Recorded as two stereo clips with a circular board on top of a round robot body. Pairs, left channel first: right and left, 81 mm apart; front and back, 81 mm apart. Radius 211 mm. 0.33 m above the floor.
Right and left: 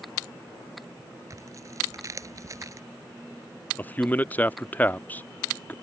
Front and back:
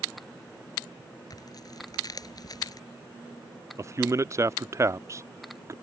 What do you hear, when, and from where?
1.3 s tearing paper: 40° left
3.8 s a man speaking: 150° right